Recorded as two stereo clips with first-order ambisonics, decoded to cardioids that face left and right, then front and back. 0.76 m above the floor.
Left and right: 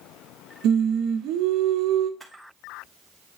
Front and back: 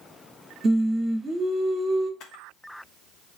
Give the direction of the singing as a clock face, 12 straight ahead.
4 o'clock.